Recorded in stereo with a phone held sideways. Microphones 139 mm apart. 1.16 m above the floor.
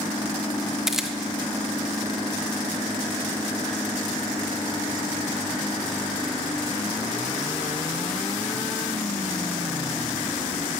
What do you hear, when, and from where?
0.9 s a camera shutter: 5° right (ahead or behind), 1.0 m